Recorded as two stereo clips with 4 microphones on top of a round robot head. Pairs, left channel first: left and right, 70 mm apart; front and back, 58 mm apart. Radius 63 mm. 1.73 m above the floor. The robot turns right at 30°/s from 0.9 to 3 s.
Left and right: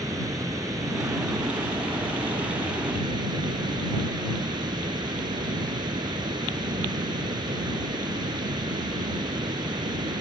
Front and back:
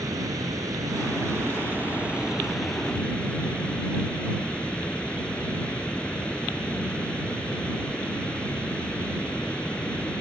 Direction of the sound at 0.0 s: 140° right.